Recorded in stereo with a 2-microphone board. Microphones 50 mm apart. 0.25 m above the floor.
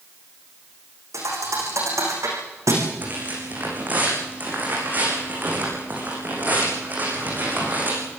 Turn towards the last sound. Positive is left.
turn(degrees=-30)  # may be behind; listen again after turning